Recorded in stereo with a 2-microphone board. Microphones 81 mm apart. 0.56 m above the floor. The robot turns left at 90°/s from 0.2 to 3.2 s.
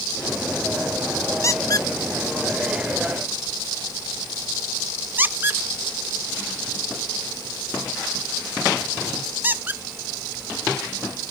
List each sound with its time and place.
1.4 s a squeak: 35° left (ahead or behind), 0.5 m; by 9.8 s 25° right (ahead or behind), 0.5 m